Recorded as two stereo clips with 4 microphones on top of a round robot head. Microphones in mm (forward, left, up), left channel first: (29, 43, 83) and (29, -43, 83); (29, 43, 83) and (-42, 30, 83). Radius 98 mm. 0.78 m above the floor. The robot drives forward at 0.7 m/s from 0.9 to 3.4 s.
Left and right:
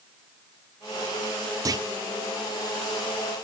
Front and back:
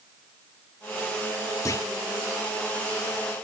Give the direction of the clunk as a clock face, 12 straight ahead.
1 o'clock.